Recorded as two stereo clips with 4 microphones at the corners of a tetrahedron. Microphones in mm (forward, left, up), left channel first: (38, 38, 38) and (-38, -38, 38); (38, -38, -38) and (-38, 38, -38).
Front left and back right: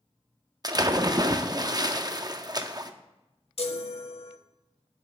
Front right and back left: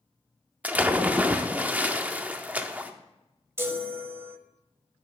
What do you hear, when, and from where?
0.6 s a splash: 160° right, 0.6 m
3.6 s a chime: 70° left, 0.8 m